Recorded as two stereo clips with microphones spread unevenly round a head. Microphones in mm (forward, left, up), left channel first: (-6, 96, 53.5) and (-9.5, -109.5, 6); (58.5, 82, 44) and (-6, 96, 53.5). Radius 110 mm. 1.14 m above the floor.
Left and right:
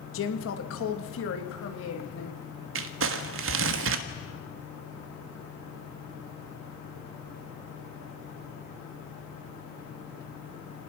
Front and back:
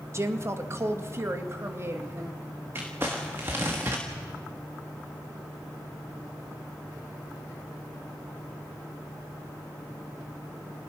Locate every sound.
0.1 s a woman speaking: 120° left, 2 m; by 2.4 s 115° left, 3.5 m
2.8 s crumpling: 120° right, 1.3 m